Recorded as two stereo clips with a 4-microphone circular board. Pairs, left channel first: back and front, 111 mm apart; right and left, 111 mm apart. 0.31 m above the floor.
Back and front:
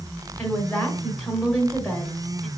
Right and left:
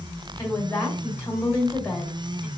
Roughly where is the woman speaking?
Behind right.